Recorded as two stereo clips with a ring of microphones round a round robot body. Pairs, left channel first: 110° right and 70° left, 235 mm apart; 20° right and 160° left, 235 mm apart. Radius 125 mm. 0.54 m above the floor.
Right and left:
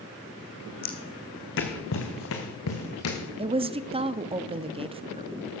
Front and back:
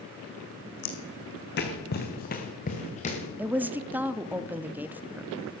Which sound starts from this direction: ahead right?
Footsteps, at 0.8 s.